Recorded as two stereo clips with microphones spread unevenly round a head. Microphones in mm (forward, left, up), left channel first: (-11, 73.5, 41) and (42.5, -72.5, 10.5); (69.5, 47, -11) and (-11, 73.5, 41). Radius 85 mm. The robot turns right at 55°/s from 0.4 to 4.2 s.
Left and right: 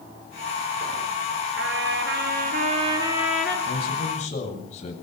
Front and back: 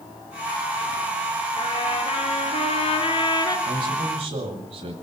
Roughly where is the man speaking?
Behind left.